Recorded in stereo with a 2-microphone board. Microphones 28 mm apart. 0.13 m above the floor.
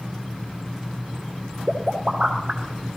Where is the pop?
30° right (ahead or behind), 2.5 m.